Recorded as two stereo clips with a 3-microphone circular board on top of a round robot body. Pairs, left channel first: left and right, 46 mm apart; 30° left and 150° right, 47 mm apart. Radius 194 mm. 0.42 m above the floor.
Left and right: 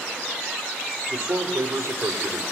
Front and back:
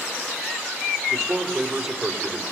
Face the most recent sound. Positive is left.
turn(degrees=-65)